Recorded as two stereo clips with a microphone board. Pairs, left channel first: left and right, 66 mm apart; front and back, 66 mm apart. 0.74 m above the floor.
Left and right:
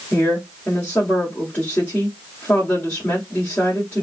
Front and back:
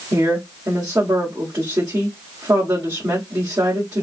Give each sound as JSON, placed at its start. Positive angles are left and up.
{"t": 0.1, "sound": "a woman speaking", "azimuth_deg": 155, "distance_m": 1.8}